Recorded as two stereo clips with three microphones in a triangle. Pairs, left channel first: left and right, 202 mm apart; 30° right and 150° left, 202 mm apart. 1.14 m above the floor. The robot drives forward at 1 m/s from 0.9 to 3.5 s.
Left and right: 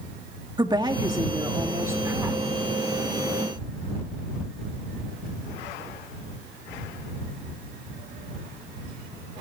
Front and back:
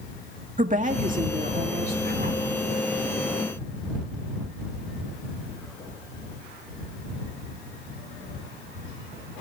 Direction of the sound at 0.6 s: 160° right.